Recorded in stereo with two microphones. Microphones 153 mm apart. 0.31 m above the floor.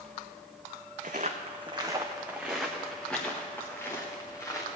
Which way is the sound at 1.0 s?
55° right (ahead or behind).